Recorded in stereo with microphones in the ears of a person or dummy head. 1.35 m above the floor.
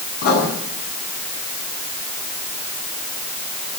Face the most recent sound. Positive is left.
turn(degrees=50)  # may be behind; listen again after turning